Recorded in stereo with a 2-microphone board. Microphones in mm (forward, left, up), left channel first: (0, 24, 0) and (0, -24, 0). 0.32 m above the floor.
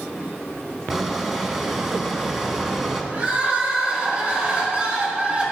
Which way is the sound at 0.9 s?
5° right (ahead or behind).